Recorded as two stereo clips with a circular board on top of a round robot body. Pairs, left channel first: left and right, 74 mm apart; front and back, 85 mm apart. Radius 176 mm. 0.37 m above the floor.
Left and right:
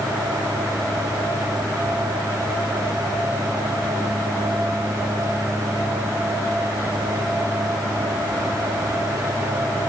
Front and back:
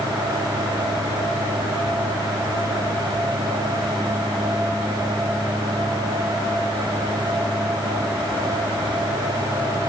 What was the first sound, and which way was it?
Only background noise.